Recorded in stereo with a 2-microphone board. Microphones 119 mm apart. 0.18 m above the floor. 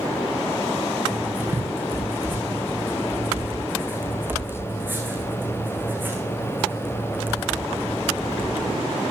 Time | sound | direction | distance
1.1 | writing | 15° right (ahead or behind) | 5.5 m